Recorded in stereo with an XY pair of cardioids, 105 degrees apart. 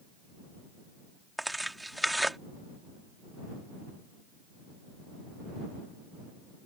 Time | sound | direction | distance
1.4 | tearing paper | 5° right | ?